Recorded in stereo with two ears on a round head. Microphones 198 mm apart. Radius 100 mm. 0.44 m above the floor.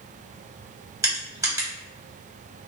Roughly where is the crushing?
Centre.